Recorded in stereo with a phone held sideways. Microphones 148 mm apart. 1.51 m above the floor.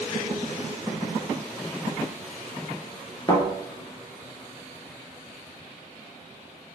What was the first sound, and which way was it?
A thud, 30° left (ahead or behind).